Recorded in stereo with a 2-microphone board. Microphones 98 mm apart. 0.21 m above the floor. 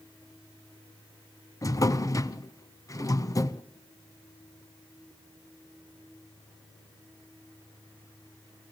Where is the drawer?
35° left (ahead or behind), 0.7 m.